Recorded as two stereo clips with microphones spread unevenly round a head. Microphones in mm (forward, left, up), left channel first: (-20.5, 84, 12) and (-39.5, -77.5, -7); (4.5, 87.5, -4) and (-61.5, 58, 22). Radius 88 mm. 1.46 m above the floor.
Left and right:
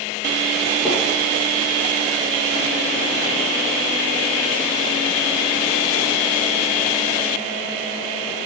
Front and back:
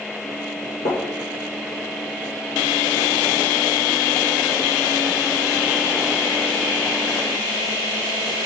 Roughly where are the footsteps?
Ahead.